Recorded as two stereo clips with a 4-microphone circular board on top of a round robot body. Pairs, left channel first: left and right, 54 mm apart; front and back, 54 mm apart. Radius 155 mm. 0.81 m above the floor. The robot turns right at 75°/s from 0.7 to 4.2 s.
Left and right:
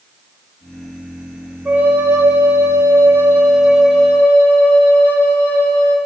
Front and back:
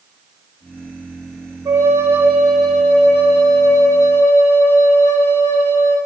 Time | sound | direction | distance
1.6 | a flute | 155° right | 3.5 m